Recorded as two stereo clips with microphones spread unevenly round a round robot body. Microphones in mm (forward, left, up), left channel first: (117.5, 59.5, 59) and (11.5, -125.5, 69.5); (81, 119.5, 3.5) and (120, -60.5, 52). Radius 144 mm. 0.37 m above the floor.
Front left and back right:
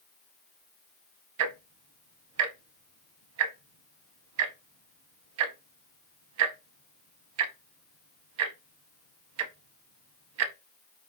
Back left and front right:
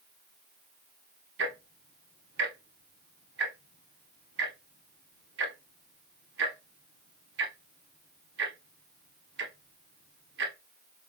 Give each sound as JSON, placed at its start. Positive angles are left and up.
{"t": 1.4, "sound": "ticking", "azimuth_deg": -125, "distance_m": 0.5}